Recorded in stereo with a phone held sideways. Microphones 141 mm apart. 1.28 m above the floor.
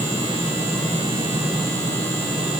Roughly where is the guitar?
I don't hear a guitar.